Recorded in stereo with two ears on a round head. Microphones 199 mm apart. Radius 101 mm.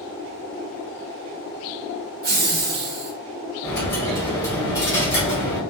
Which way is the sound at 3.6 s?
15° left (ahead or behind).